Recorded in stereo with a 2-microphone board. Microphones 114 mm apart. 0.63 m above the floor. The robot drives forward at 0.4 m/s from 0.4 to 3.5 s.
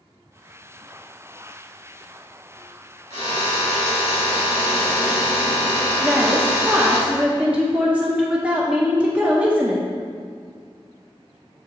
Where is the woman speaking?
10° right (ahead or behind), 0.8 m.